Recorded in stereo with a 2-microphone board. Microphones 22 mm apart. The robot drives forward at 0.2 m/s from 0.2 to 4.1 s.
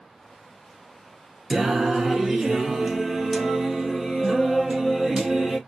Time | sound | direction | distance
1.5 | singing | 20° right (ahead or behind) | 0.6 m